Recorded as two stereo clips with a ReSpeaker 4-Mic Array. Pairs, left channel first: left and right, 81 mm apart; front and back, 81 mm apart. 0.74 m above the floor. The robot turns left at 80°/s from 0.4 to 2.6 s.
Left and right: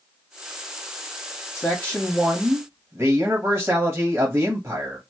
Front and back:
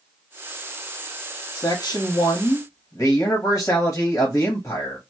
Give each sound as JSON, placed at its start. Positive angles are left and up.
{"t": 1.6, "sound": "a man speaking", "azimuth_deg": 30, "distance_m": 1.2}